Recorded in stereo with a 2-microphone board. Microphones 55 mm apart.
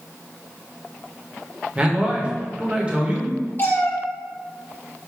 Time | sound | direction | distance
1.8 | a man speaking | 20° right (ahead or behind) | 1.0 m
3.6 | a cat meowing | 40° left (ahead or behind) | 1.2 m